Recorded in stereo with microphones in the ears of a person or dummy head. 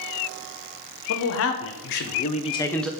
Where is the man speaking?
80° left, 1.3 m; by 2.9 s centre (ahead or behind), 0.6 m.